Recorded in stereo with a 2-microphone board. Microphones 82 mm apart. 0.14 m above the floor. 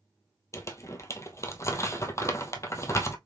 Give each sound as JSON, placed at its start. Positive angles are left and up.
{"t": 0.5, "sound": "crumpling", "side_deg": 35, "distance_m": 0.6}